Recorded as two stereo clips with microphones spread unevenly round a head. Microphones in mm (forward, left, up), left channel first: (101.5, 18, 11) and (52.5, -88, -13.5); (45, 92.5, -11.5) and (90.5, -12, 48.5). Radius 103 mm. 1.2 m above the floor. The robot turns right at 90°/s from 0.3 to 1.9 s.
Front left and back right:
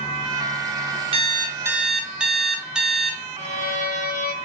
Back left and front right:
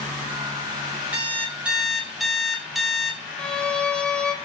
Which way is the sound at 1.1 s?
90° right.